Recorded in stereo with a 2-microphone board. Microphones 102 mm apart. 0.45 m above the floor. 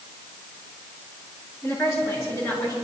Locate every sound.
1.6 s a woman speaking: 25° left (ahead or behind), 6.5 m; by 2.8 s 35° left (ahead or behind), 7 m